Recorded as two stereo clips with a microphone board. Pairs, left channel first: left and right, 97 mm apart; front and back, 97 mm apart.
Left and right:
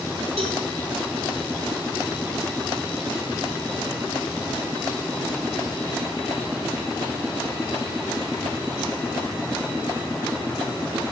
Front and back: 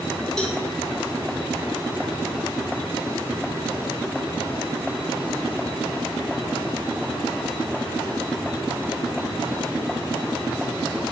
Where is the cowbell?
80° right, 5.5 m.